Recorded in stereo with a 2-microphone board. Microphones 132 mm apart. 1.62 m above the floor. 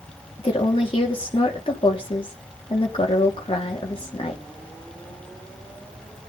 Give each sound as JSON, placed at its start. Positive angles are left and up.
{"t": 0.4, "sound": "a woman speaking", "side_deg": 45, "distance_m": 3.5}